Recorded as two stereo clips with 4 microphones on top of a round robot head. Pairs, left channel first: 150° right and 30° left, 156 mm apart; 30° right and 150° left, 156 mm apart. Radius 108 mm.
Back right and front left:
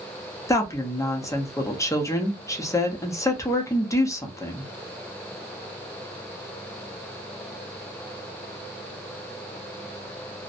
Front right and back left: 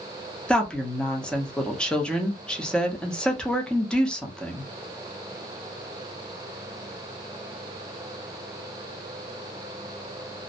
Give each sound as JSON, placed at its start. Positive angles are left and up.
{"t": 0.5, "sound": "a woman speaking", "azimuth_deg": -110, "distance_m": 0.8}